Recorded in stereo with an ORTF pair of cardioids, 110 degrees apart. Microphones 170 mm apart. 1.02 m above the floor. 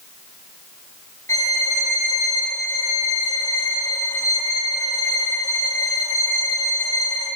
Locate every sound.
1.3 s a violin: 20° left, 3 m